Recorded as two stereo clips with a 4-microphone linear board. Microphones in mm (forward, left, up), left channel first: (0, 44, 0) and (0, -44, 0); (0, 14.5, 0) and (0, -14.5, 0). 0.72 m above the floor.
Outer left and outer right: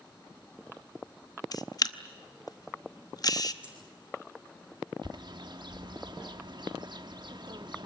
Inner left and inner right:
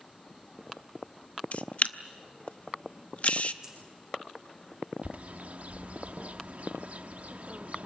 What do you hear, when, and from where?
1.5 s a camera shutter: 45° left (ahead or behind), 0.8 m
3.6 s a dropped coin: 15° right (ahead or behind), 6.5 m
5.0 s a bird: 55° right (ahead or behind), 1.0 m